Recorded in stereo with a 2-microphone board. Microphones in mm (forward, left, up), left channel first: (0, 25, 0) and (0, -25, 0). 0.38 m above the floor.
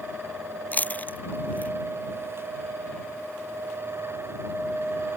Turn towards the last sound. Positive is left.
turn(degrees=30)  # may be behind; listen again after turning